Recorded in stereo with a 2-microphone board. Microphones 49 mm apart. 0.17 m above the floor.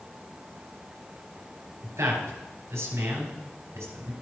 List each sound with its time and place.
1.8 s a man speaking: 65° right (ahead or behind), 3.5 m